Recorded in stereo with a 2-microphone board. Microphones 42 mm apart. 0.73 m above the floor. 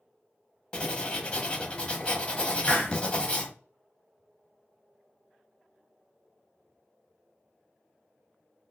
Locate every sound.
0.7 s writing: 25° left (ahead or behind), 0.7 m
2.6 s a hiss: 45° left (ahead or behind), 0.7 m